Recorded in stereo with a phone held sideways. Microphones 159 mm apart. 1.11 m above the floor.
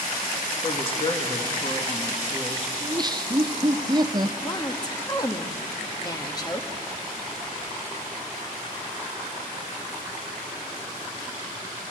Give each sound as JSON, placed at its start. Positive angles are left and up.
{"t": 0.6, "sound": "a woman speaking", "side_deg": 35, "distance_m": 1.8}
{"t": 2.8, "sound": "laughter", "side_deg": -30, "distance_m": 0.7}
{"t": 4.4, "sound": "a woman speaking", "side_deg": 25, "distance_m": 1.4}